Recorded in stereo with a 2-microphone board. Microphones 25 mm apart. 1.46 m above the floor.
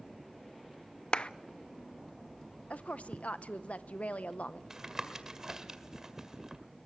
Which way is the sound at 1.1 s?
45° left (ahead or behind).